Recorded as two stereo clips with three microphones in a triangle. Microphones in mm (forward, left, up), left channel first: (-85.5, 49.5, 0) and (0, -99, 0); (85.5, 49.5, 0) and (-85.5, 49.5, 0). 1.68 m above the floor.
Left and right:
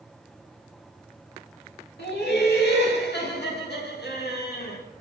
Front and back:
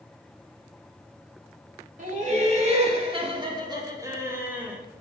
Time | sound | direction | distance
2.0 | laughter | 135° left | 2.5 m